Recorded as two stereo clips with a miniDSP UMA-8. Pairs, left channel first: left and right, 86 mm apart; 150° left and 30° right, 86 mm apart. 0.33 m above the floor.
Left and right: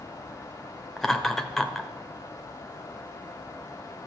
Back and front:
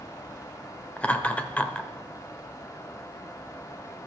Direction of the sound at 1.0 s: 175° left.